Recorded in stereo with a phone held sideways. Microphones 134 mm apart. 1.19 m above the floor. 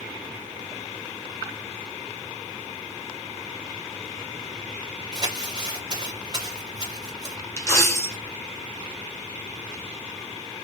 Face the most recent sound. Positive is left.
turn(degrees=20)  # may be behind; listen again after turning